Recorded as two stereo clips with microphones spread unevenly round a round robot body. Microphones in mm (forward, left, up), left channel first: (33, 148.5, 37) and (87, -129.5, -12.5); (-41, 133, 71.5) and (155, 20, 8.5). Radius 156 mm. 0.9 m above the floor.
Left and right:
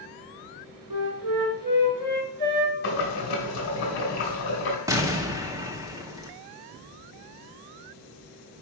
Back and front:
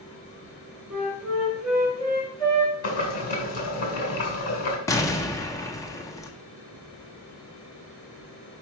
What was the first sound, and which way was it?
A flute, 115° right.